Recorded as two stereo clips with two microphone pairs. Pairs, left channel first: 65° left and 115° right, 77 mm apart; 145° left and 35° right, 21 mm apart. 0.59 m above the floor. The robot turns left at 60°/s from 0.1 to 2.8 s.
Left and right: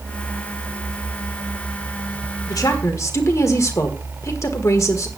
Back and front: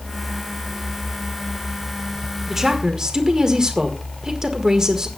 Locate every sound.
2.5 s a woman speaking: 40° left, 1.4 m; by 5.1 s 20° left, 1.4 m